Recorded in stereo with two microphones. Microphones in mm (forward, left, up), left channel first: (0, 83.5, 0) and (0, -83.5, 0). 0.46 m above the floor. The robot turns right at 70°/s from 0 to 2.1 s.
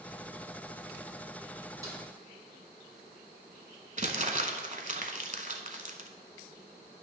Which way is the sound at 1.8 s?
20° right (ahead or behind).